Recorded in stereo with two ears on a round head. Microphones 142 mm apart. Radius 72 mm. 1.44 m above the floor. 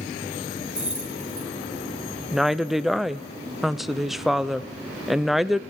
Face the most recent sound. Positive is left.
turn(degrees=0)  # may be behind; listen again after turning